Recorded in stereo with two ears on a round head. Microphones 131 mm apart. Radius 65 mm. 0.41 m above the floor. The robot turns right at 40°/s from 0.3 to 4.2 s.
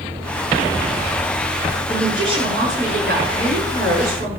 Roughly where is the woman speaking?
Behind.